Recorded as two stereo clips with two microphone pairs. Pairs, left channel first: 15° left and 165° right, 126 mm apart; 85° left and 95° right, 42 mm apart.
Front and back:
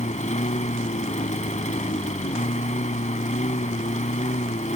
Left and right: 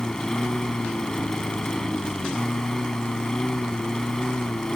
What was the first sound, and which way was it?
A lawn mower, 5° left.